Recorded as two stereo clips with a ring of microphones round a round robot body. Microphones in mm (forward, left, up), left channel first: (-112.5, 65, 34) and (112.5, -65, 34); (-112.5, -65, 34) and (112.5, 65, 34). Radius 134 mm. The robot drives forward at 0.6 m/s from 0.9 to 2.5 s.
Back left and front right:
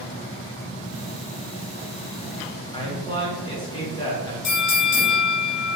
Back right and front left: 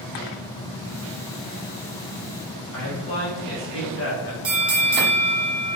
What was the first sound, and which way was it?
A man speaking, 145° right.